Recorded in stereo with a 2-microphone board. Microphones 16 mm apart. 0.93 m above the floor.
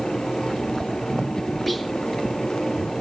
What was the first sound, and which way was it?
Whispering, 15° left (ahead or behind).